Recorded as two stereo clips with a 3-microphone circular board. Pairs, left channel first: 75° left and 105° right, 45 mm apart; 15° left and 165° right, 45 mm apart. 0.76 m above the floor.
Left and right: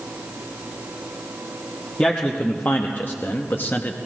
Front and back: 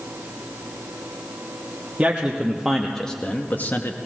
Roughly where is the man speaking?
Behind left.